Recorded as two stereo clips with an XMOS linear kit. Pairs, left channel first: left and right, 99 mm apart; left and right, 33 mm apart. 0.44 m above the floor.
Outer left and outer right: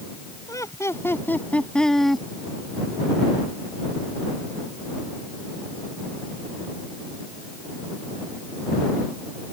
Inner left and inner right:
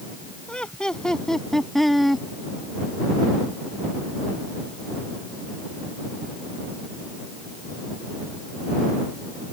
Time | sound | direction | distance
0.5 | laughter | 35° left (ahead or behind) | ?